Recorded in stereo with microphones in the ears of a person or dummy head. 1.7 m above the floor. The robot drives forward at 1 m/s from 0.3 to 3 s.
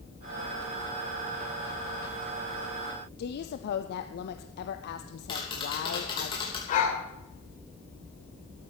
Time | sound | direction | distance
3.2 | a woman speaking | 60° left (ahead or behind) | 0.6 m
5.3 | tapping | 30° left (ahead or behind) | 3 m
6.7 | a dog barking | 45° left (ahead or behind) | 3 m